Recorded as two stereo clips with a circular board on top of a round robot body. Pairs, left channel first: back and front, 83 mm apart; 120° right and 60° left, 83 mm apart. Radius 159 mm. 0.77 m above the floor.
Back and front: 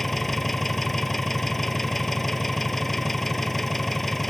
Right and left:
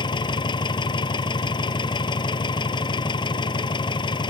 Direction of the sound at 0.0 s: 90° right.